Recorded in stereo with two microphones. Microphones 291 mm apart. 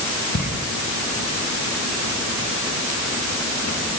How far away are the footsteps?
About 7.5 m.